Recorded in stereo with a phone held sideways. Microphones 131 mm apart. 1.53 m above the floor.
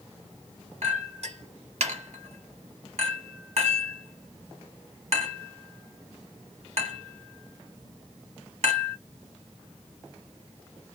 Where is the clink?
60° right (ahead or behind), 1.6 m.